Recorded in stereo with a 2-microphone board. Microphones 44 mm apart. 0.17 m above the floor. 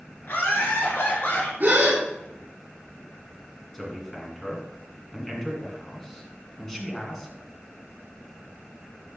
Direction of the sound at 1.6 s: 45° right (ahead or behind).